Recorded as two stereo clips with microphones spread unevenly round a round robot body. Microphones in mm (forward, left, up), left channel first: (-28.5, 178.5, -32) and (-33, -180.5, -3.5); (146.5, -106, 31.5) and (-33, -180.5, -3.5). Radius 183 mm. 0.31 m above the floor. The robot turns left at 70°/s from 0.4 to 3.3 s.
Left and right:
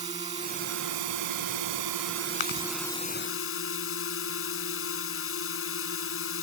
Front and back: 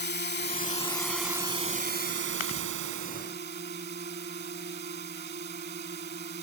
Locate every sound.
0.0 s a drone: 15° right; by 6.5 s 140° left
2.4 s chewing: 60° left; by 2.7 s 40° left